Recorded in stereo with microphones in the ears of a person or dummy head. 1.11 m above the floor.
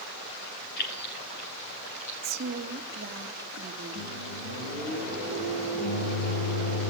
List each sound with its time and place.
0.8 s keys jangling: 60° left (ahead or behind), 3 m; by 3.1 s 65° left (ahead or behind), 5.5 m
2.2 s a woman speaking: 45° right (ahead or behind), 2.5 m
4.0 s a microwave: 65° left (ahead or behind), 8.5 m